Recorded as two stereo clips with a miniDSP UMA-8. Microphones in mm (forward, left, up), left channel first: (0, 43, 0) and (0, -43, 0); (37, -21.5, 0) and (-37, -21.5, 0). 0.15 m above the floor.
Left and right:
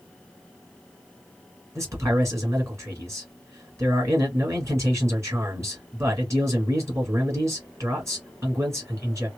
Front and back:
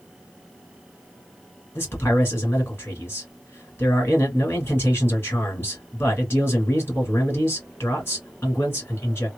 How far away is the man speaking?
About 2 m.